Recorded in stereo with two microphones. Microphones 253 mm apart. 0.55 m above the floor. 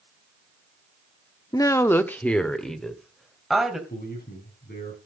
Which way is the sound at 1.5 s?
15° left (ahead or behind).